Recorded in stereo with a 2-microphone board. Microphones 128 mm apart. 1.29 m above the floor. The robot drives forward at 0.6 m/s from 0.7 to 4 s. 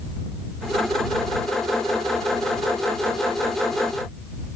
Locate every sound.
Only background noise.